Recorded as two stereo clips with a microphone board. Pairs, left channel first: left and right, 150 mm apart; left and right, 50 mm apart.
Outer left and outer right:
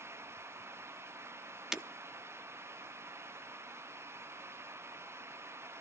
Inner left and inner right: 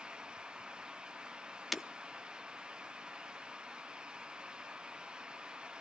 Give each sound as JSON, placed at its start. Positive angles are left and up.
{"t": 1.7, "sound": "breaking glass", "side_deg": -5, "distance_m": 0.7}